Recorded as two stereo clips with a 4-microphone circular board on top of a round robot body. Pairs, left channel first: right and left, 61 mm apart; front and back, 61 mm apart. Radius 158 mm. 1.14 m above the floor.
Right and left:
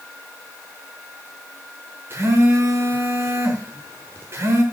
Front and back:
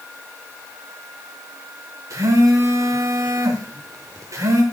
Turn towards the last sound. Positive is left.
turn(degrees=140)